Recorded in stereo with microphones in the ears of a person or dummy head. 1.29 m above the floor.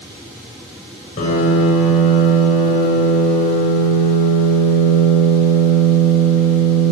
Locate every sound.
1.2 s a piano: 40° left (ahead or behind), 8.5 m